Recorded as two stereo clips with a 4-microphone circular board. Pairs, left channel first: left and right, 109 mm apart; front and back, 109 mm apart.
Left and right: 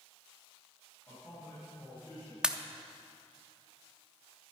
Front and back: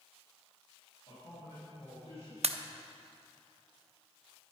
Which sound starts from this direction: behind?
A pop, at 2.4 s.